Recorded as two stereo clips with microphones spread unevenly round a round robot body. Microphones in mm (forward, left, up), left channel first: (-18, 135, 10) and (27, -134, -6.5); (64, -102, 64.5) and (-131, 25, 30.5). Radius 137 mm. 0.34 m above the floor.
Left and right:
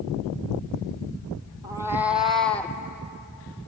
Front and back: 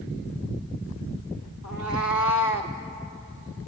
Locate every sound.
1.6 s a cat meowing: 5° right, 1.5 m; by 2.8 s 20° left, 1.7 m